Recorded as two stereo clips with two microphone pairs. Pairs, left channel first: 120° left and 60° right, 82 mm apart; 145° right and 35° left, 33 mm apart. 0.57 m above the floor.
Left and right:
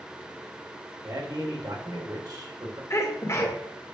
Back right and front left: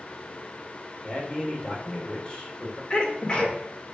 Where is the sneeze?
165° left, 1.7 m.